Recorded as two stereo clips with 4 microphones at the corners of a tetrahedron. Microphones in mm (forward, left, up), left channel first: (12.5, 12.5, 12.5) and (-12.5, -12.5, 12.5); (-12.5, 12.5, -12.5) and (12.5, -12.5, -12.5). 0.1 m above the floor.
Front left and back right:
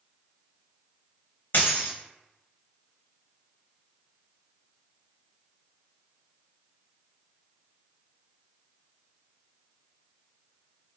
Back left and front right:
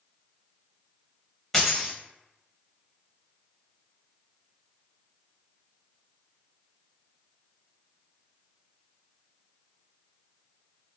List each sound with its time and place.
1.5 s a dropped coin: 50° left, 0.7 m